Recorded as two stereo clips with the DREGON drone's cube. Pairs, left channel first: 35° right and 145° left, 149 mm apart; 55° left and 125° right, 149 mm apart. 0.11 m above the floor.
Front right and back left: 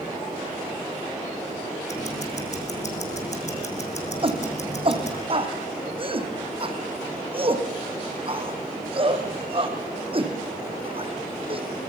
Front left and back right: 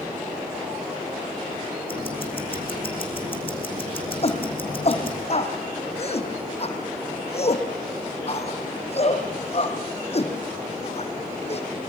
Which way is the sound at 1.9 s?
5° left.